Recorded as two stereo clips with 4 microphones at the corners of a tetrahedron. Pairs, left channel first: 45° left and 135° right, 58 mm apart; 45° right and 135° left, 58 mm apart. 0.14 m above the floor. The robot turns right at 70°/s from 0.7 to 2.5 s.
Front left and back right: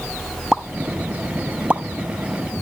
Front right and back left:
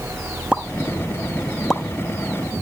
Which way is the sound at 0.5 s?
165° left.